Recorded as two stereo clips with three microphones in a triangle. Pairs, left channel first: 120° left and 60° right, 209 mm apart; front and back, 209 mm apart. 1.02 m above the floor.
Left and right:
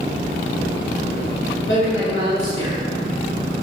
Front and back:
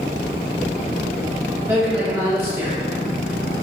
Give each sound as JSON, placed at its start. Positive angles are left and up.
{"t": 1.7, "sound": "a man speaking", "azimuth_deg": 100, "distance_m": 1.9}